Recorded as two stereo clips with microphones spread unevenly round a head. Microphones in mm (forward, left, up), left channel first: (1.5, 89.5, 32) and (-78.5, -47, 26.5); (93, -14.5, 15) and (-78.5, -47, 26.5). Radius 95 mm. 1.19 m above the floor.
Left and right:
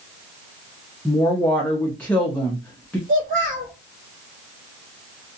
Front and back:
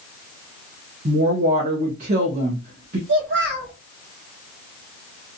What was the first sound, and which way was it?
A woman speaking, 140° left.